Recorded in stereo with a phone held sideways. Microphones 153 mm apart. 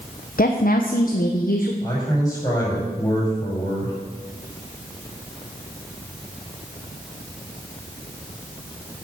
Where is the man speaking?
25° left (ahead or behind), 6 m.